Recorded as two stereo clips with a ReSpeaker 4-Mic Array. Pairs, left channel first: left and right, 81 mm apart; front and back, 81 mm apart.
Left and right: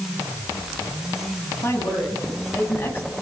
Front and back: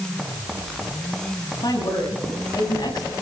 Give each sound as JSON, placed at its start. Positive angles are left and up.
{"t": 1.6, "sound": "a woman speaking", "azimuth_deg": 40, "distance_m": 9.5}